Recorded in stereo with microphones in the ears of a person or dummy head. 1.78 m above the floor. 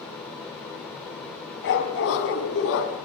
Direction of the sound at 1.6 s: 65° left (ahead or behind).